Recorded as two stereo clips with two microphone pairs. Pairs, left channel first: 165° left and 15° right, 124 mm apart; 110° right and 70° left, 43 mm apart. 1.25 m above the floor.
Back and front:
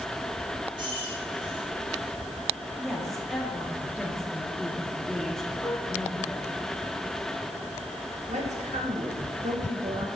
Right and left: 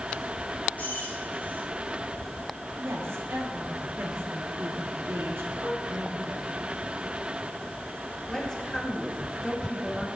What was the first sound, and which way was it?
Keys jangling, 60° right.